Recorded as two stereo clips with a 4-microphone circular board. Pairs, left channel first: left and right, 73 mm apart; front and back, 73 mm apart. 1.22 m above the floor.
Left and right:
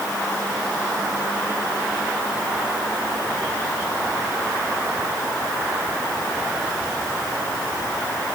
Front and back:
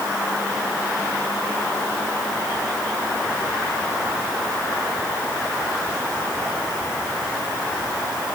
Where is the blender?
No blender in this recording.